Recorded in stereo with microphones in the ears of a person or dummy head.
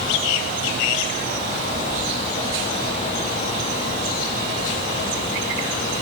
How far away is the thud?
I don't hear a thud.